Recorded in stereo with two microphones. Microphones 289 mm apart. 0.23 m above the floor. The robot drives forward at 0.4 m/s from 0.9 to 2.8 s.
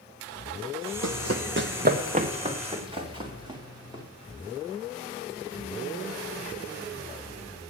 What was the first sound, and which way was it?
Running footsteps, 75° right (ahead or behind).